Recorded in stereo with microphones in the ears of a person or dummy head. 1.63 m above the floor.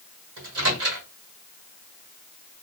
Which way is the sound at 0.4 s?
80° right.